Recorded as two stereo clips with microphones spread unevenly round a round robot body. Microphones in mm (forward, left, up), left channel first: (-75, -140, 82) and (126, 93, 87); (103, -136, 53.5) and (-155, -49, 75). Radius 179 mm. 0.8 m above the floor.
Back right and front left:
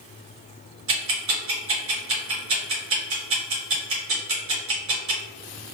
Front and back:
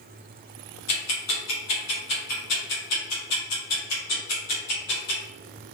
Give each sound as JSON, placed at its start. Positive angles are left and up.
{"t": 0.9, "sound": "ticking", "azimuth_deg": 5, "distance_m": 1.4}